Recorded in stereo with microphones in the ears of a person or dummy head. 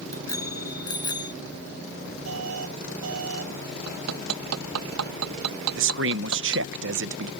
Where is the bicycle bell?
20° left (ahead or behind); by 1.3 s 25° left (ahead or behind).